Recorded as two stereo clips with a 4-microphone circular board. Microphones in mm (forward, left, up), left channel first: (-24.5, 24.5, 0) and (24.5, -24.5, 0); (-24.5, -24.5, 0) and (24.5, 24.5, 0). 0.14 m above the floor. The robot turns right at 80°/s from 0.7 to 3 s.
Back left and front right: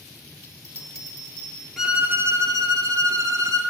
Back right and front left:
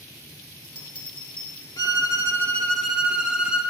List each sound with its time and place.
0.4 s a bell: 35° right, 1.2 m; by 1.7 s 45° left, 1.2 m
1.8 s a violin: 130° right, 0.8 m; by 3.6 s 30° right, 0.8 m